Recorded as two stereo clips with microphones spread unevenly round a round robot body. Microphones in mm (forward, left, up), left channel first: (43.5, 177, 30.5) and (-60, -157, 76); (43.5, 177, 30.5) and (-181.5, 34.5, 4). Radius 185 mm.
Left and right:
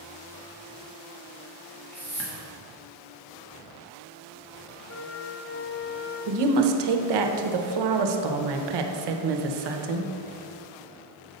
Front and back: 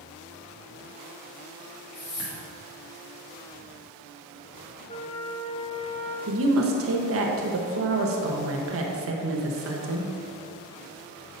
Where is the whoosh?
10° right, 1.5 m.